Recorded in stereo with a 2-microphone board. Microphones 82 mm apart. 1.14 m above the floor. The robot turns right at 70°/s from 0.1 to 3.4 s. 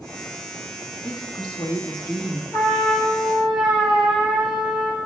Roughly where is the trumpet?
Behind left.